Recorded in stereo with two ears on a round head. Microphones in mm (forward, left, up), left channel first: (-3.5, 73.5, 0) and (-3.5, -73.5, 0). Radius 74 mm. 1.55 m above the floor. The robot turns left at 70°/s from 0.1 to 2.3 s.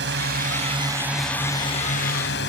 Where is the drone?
100° right; by 2.5 s 105° left.